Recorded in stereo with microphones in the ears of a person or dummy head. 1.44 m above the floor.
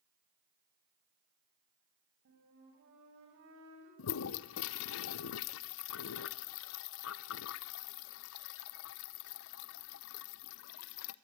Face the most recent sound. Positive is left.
turn(degrees=60)  # may be behind; listen again after turning